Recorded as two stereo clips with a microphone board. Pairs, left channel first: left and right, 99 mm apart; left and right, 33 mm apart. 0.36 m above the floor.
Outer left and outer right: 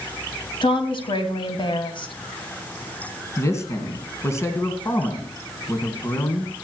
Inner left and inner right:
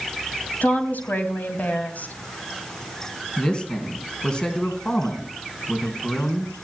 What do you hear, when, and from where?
0.6 s a woman speaking: 60° left (ahead or behind), 2.5 m
3.4 s a man speaking: 30° left (ahead or behind), 3 m